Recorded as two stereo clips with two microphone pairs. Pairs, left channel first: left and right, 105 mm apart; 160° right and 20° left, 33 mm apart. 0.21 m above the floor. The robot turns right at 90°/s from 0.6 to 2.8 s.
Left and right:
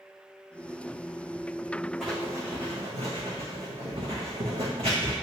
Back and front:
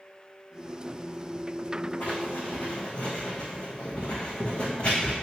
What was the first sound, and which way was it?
Writing, straight behind.